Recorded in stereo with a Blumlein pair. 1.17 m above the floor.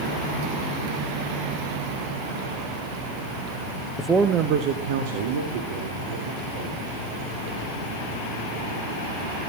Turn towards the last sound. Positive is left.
turn(degrees=-70)